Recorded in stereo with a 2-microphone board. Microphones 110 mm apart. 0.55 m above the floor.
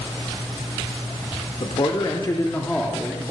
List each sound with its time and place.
1.6 s a man speaking: 55° left (ahead or behind), 1.1 m; by 3.2 s 10° right (ahead or behind), 0.9 m